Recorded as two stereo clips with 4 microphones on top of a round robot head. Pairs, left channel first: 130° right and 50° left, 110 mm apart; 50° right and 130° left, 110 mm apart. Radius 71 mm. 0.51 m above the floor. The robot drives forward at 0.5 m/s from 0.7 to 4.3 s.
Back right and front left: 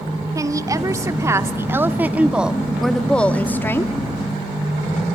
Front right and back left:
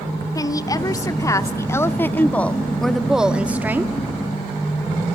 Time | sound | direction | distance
0.3 | a woman speaking | straight ahead | 1.4 m